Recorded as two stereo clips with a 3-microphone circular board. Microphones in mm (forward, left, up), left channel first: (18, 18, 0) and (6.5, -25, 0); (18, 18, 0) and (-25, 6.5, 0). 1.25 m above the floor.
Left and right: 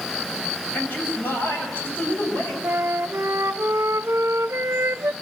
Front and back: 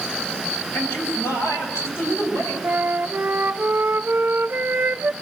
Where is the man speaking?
30° left, 6.5 m.